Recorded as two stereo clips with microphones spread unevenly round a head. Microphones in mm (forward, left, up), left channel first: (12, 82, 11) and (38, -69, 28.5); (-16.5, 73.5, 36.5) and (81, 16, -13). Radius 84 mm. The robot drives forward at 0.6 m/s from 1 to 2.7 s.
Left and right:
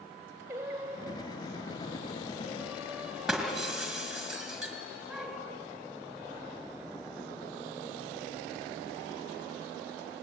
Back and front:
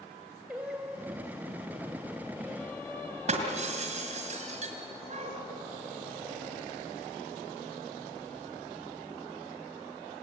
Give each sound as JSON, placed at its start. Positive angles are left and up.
{"t": 0.5, "sound": "singing", "azimuth_deg": -140, "distance_m": 1.9}
{"t": 3.3, "sound": "breaking glass", "azimuth_deg": 5, "distance_m": 4.0}